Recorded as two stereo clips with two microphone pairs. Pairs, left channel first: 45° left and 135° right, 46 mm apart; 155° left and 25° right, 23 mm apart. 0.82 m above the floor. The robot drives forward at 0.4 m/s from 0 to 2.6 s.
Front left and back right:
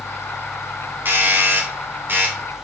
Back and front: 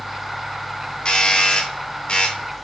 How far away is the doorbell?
About 3 m.